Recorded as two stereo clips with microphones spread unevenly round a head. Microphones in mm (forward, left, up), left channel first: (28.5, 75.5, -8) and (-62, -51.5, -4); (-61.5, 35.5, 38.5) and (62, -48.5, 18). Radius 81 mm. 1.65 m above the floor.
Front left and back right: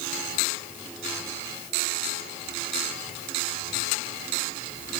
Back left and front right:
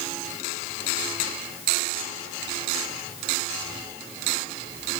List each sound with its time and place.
Only background noise.